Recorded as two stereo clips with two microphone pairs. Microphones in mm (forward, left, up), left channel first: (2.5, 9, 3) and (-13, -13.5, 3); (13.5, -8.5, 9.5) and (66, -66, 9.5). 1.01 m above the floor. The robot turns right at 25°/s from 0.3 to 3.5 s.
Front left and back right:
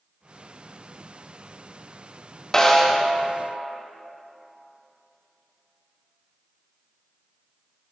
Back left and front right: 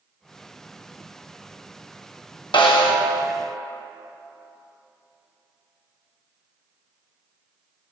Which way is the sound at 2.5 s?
125° left.